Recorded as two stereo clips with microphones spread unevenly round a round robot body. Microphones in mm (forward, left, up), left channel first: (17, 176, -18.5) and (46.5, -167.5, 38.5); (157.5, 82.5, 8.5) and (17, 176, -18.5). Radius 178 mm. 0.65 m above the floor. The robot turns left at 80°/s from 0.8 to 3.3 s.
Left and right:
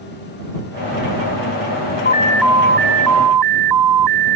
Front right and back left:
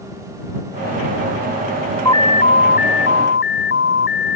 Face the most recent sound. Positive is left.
turn(degrees=-65)